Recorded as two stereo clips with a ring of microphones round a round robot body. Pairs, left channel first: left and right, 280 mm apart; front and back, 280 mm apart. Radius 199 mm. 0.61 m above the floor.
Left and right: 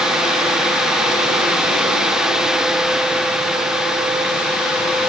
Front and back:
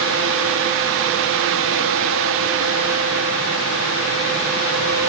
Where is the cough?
No cough in this recording.